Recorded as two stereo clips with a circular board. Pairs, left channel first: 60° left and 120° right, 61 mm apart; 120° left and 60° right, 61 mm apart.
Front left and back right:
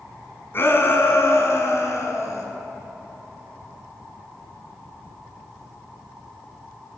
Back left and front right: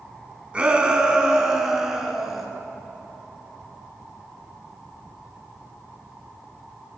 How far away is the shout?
About 3 m.